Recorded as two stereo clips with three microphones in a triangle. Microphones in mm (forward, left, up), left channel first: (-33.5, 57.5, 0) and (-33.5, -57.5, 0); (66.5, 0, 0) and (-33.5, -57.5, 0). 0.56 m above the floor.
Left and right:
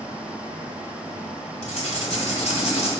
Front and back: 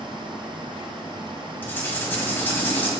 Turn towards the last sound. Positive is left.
turn(degrees=100)